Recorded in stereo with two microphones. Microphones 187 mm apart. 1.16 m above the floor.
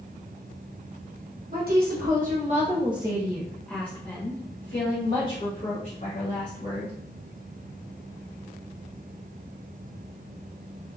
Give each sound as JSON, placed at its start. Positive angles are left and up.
{"t": 1.5, "sound": "a woman speaking", "side_deg": -60, "distance_m": 1.2}